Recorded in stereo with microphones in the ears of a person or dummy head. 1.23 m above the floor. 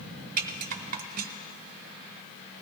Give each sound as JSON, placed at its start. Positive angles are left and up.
{"t": 0.4, "sound": "a rattle", "side_deg": -45, "distance_m": 0.6}